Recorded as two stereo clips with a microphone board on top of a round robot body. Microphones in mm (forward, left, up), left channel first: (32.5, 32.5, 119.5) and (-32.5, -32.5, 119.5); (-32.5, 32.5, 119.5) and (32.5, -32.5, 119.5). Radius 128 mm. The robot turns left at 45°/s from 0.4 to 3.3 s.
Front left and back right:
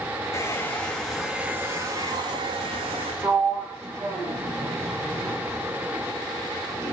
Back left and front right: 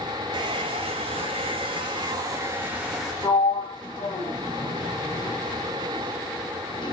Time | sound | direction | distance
0.3 | a hair dryer | 15° right | 0.6 m
3.2 | a sliding door | 175° left | 3 m